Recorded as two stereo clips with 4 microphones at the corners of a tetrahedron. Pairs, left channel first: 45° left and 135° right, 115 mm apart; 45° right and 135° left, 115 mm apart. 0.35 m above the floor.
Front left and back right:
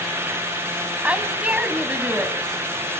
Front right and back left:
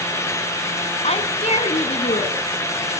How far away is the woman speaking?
About 2 m.